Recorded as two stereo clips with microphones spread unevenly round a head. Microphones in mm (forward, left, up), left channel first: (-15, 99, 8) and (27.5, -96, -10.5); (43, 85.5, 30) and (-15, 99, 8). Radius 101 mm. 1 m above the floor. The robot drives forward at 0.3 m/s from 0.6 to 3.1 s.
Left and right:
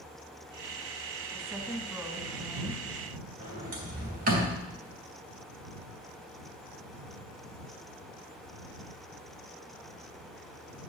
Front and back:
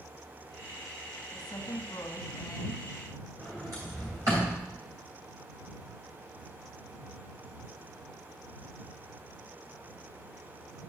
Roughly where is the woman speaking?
Ahead.